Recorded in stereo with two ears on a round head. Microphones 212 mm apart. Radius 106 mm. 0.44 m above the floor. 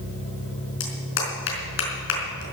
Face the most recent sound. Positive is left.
turn(degrees=55)  # may be behind; listen again after turning